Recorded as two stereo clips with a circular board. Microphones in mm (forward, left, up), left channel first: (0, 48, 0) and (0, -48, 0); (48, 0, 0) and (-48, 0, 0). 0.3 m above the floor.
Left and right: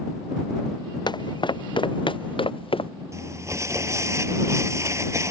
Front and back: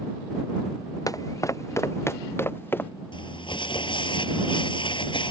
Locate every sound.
1.1 s footsteps: 50° left; by 2.9 s 65° left
3.1 s crumpling: 30° right